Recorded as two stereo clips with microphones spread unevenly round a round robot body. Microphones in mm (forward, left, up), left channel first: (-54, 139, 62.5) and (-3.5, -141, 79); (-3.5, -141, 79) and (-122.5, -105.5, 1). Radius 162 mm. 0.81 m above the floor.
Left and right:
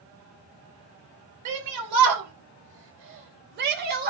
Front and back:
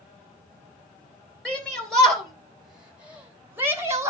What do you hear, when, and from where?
1.4 s a shout: 105° right, 4.5 m; by 4.1 s 140° right, 4 m